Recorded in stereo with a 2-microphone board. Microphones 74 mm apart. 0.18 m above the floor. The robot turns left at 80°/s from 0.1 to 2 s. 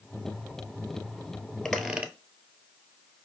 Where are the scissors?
No scissors in this recording.